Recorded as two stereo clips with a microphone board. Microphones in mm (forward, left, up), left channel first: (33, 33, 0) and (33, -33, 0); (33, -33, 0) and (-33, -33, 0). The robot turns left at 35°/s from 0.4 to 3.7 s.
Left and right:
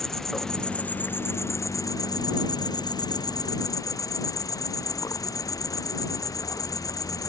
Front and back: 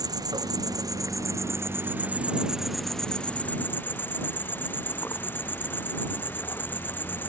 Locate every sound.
0.0 s an insect: 175° left; by 7.3 s 55° left